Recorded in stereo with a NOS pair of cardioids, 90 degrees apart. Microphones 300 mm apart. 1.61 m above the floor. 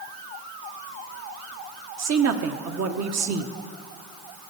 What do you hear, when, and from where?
2.0 s a woman speaking: 60° right, 1.3 m